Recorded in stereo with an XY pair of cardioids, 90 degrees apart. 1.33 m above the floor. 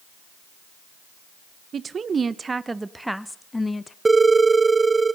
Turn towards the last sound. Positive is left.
turn(degrees=-25)